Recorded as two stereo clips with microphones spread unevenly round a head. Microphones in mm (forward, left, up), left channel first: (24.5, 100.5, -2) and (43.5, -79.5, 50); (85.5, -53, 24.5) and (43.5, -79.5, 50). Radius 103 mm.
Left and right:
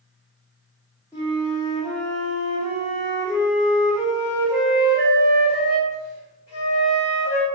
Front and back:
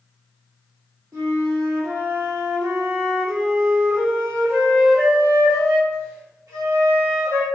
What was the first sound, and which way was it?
A flute, 175° left.